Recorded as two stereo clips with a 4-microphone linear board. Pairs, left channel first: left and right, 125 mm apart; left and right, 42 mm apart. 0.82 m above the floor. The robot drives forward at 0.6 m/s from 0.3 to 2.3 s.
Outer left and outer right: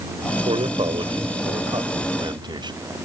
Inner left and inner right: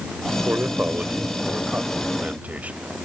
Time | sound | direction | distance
0.5 | a man speaking | 45° right (ahead or behind) | ?